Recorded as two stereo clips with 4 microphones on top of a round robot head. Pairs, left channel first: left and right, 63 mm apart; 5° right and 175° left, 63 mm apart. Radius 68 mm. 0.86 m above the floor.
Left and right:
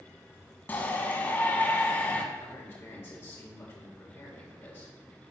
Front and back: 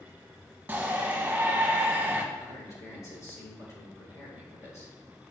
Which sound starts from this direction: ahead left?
A man speaking, at 2.4 s.